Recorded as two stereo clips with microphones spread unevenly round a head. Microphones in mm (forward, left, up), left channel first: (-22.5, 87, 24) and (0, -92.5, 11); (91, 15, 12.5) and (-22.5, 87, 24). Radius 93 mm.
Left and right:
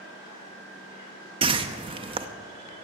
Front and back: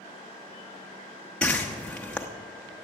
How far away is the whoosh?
About 0.8 m.